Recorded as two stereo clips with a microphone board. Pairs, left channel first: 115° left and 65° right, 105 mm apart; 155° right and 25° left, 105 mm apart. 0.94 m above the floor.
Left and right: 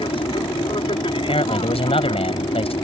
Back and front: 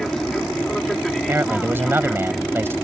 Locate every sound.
0.0 s an aircraft: 115° left
1.2 s a man speaking: 90° left